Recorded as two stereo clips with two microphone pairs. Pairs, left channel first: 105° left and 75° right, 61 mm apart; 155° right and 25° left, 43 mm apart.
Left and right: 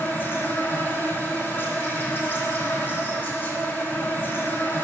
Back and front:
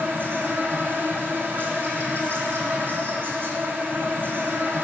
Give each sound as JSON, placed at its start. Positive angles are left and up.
{"t": 0.0, "sound": "an insect", "azimuth_deg": 55, "distance_m": 2.0}